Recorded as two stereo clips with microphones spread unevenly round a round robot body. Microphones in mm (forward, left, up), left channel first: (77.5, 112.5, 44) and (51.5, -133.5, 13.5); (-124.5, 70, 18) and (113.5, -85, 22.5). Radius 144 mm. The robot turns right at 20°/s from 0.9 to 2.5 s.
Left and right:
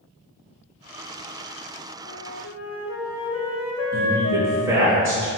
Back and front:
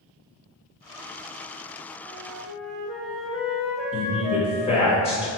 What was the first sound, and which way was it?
A flute, 50° left.